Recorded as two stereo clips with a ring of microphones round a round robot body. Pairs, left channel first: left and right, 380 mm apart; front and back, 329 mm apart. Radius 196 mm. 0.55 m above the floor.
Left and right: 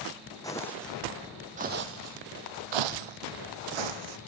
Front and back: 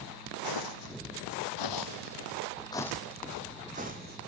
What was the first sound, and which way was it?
Footsteps, 10° left.